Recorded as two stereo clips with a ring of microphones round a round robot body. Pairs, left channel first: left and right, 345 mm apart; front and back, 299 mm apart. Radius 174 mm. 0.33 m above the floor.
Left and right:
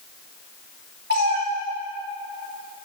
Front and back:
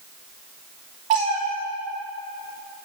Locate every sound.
1.1 s a cat meowing: 155° right, 3.5 m